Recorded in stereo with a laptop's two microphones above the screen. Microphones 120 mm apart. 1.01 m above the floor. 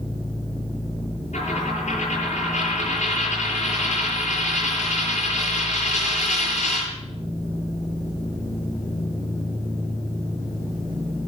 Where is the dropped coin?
80° left, 8.5 m.